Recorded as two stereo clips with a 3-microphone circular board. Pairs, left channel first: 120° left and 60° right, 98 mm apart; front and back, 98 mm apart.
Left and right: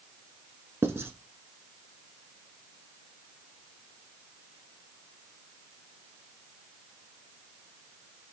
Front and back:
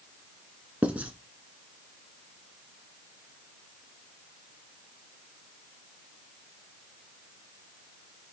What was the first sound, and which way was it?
Writing, 110° right.